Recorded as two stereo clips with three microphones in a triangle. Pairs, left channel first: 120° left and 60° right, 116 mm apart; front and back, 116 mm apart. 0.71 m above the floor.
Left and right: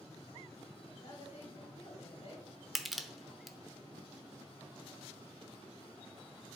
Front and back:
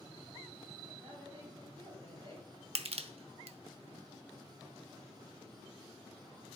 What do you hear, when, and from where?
1.0 s a woman speaking: 140° left, 3 m
2.8 s crushing: 150° right, 0.8 m